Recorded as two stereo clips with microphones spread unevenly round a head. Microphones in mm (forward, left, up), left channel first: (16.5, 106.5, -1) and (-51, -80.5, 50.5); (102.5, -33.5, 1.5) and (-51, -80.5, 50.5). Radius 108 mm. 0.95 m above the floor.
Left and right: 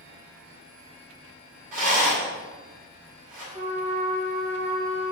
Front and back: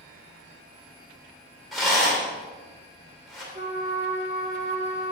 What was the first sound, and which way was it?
A rattle, 70° right.